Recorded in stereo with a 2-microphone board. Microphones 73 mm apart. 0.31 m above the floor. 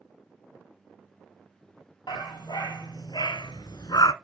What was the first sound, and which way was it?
A dog barking, 80° left.